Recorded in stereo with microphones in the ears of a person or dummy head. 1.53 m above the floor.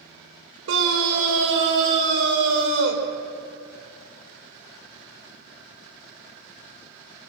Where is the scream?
75° right (ahead or behind), 5.5 m.